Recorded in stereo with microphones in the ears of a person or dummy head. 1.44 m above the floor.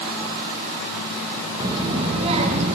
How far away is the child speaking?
About 1.3 m.